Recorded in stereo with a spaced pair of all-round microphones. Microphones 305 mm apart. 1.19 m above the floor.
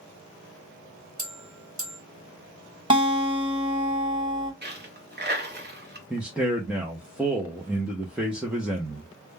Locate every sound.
1.2 s a bell: 65° right (ahead or behind), 1.5 m
2.9 s a guitar: 15° right (ahead or behind), 1.3 m
4.6 s a dropped coin: 35° right (ahead or behind), 0.8 m
6.1 s a man speaking: 5° right (ahead or behind), 0.5 m